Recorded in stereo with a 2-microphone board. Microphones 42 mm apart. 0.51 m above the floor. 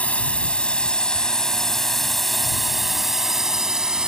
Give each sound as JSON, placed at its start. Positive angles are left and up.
{"t": 0.0, "sound": "a drone", "side_deg": 30}